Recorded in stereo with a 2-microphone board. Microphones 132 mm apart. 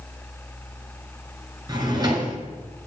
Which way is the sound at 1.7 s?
30° right (ahead or behind).